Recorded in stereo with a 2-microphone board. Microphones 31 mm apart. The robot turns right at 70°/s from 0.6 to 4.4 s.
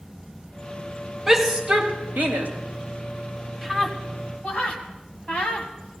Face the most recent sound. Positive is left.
turn(degrees=35)  # may be behind; listen again after turning